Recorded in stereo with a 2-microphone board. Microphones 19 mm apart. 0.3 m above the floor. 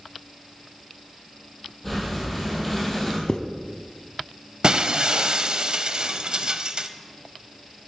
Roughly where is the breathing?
Centre.